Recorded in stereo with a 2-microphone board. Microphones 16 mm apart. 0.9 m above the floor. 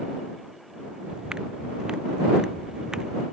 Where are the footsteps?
55° right (ahead or behind); by 3.2 s 45° right (ahead or behind).